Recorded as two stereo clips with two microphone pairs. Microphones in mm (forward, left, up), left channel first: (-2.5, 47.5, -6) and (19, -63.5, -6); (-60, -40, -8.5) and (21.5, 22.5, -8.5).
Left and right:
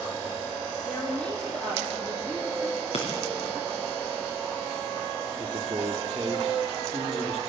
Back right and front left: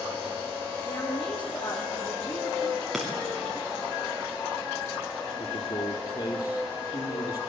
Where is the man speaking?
125° right, 3 m.